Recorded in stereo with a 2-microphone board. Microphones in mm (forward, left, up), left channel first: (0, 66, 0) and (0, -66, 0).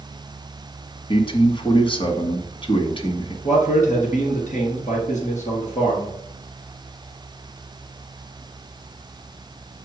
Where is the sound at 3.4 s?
70° left (ahead or behind), 3.5 m.